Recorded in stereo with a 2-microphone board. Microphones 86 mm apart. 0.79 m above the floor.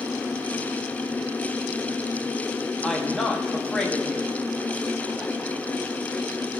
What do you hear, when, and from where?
2.8 s a woman speaking: 10° left (ahead or behind), 1.4 m